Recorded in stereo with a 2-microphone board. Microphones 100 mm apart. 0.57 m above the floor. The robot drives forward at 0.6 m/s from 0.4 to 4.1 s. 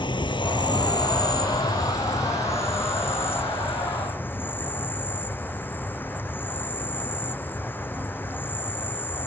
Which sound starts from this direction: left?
An insect, at 0.0 s.